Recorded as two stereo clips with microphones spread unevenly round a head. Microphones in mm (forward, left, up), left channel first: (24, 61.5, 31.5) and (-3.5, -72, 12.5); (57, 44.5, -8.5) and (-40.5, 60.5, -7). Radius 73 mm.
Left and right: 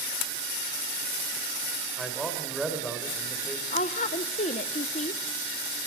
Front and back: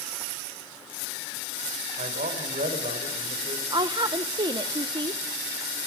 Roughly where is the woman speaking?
Behind left.